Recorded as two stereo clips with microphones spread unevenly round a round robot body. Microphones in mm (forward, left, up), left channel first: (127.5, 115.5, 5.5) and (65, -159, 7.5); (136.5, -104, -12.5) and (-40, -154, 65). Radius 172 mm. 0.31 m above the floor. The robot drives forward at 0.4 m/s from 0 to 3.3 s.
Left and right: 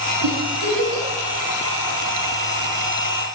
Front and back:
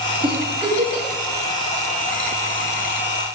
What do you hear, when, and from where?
0.2 s a giggle: 95° right, 4 m; by 1.1 s 100° right, 4 m